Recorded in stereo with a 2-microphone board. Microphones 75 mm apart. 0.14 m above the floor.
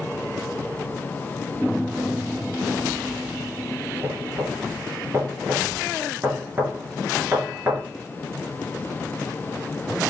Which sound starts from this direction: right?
Knocking, at 4.0 s.